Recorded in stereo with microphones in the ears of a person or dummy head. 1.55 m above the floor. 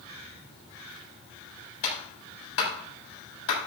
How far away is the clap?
About 7.5 m.